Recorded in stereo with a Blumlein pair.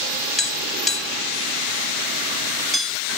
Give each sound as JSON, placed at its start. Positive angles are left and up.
{"t": 0.4, "sound": "tapping", "azimuth_deg": 0, "distance_m": 3.0}